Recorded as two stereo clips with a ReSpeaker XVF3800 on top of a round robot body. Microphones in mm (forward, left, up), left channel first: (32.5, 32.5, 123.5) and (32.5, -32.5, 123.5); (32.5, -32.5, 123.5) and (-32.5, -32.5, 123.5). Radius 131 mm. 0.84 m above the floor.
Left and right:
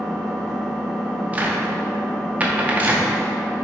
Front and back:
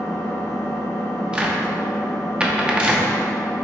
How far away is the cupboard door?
About 0.8 m.